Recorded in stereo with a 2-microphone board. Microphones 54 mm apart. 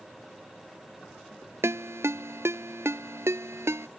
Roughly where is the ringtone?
Right.